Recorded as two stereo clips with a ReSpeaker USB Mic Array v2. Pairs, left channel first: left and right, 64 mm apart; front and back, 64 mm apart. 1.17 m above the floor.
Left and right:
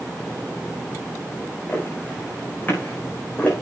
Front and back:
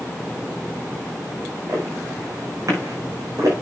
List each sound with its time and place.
1.7 s footsteps: 145° left, 6.5 m; by 3.5 s 150° left, 5.5 m